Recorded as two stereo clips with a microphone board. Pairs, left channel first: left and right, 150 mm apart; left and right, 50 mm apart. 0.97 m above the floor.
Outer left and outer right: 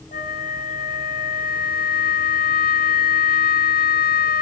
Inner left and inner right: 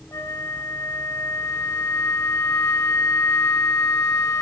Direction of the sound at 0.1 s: 70° left (ahead or behind).